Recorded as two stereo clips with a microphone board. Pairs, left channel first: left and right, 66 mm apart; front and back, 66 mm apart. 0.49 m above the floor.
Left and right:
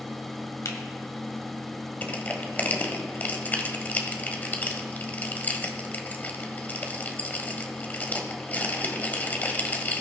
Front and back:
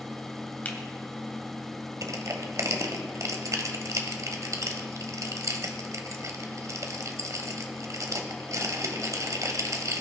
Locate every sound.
0.7 s a finger snap: 65° left, 1.9 m
2.0 s crushing: 150° left, 1.5 m